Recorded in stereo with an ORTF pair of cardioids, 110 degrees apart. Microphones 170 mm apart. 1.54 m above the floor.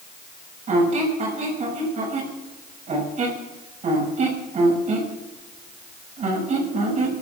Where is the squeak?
40° right, 6.5 m.